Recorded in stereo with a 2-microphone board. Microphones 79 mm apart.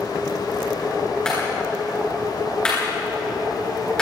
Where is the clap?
10° left (ahead or behind), 10 m.